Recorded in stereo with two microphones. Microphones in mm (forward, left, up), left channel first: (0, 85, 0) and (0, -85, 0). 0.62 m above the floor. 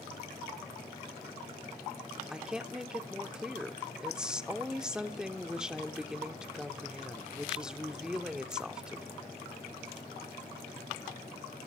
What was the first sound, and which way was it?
A woman speaking, 5° right (ahead or behind).